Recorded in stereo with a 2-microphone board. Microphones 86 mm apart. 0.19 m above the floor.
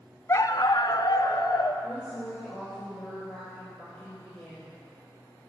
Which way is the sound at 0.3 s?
35° left (ahead or behind).